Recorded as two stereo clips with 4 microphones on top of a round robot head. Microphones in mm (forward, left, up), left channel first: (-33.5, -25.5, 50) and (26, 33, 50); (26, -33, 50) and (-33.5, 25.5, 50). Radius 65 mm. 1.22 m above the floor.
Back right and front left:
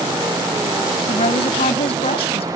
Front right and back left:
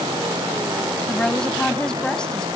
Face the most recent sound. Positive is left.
turn(degrees=-125)